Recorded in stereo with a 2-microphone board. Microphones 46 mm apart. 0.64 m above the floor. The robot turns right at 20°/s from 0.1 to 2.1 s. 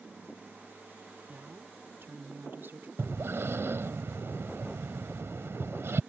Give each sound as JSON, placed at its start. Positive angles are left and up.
{"t": 1.3, "sound": "a woman speaking", "side_deg": -45}
{"t": 3.0, "sound": "breathing", "side_deg": -70}